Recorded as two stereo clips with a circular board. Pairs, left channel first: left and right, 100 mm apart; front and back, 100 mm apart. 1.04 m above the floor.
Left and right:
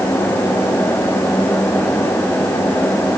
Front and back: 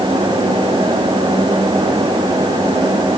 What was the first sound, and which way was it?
Only background noise.